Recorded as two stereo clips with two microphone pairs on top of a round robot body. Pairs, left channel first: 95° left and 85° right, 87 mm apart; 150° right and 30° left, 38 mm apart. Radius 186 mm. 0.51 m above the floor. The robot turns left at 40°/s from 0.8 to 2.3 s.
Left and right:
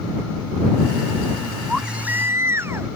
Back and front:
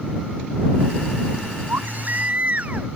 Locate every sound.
1.7 s a baby crying: straight ahead; by 2.9 s 20° right